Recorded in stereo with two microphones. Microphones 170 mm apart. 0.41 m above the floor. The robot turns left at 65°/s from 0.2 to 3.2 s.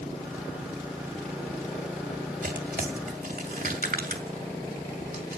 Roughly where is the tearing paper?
Right.